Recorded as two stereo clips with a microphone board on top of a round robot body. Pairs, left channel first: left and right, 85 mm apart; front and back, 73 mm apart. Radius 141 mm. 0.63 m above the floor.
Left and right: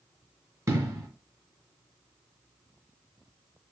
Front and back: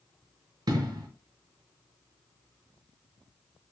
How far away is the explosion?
About 0.9 m.